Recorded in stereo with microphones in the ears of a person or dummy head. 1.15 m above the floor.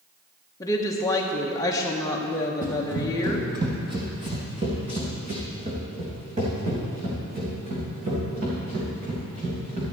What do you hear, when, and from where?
0.6 s a woman speaking: 15° left (ahead or behind), 1.0 m
2.6 s running footsteps: 10° right (ahead or behind), 1.5 m; by 9.8 s 45° right (ahead or behind), 6 m